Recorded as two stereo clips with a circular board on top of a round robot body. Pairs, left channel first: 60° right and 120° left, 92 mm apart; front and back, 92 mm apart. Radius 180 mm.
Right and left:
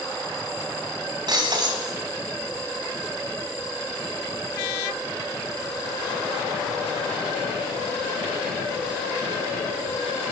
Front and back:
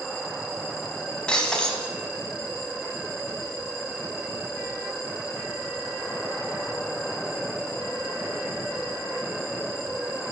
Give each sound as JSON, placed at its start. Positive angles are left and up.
{"t": 1.3, "sound": "breaking glass", "azimuth_deg": 80, "distance_m": 3.0}